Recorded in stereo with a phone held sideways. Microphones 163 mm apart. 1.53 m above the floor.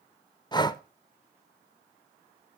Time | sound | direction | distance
0.5 | breathing | 25° left (ahead or behind) | 0.6 m